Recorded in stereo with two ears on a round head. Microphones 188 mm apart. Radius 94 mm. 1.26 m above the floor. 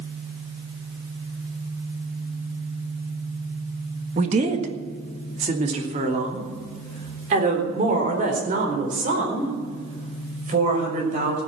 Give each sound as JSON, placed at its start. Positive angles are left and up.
{"t": 4.2, "sound": "a woman speaking", "side_deg": -35, "distance_m": 1.6}